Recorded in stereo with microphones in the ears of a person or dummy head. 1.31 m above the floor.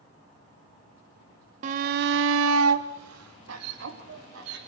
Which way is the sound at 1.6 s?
40° right (ahead or behind).